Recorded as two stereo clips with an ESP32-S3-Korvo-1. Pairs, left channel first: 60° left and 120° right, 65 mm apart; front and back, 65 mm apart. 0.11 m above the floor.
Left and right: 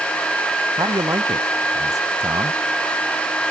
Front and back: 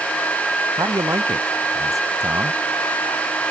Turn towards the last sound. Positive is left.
turn(degrees=-145)